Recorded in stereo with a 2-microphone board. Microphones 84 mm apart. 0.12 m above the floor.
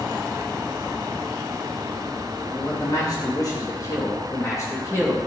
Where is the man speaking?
60° left (ahead or behind), 5 m; by 5.2 s 35° left (ahead or behind), 4 m.